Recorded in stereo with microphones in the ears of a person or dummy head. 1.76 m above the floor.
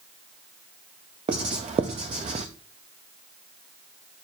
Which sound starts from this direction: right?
Writing, at 1.3 s.